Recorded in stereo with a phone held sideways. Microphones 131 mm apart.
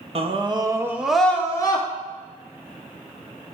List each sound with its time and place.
0.1 s a scream: 45° right (ahead or behind), 1.2 m; by 1.9 s 35° left (ahead or behind), 1.1 m